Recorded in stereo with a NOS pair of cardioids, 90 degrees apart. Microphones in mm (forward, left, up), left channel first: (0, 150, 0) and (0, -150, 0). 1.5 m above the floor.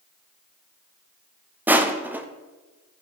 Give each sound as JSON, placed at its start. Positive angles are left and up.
{"t": 1.7, "sound": "crushing", "azimuth_deg": -5, "distance_m": 0.6}